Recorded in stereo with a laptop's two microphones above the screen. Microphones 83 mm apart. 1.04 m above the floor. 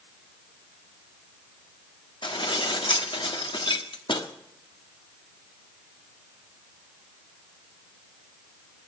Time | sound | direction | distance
2.2 | dishes clattering | 75° left (ahead or behind) | 1.4 m